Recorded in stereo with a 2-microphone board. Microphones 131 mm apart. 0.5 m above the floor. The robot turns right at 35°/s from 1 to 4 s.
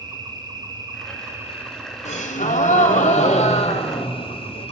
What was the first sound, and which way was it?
An insect, 40° right.